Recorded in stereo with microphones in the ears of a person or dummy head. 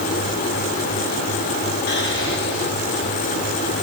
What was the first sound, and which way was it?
Whispering, 60° left (ahead or behind).